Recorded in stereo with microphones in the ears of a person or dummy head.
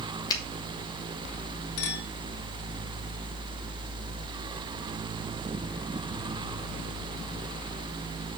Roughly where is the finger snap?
Left.